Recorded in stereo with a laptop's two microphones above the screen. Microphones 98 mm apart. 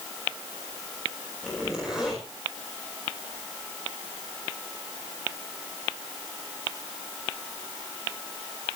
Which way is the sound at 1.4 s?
5° right (ahead or behind).